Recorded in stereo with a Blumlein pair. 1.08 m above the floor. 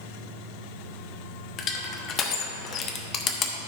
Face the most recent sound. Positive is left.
turn(degrees=30)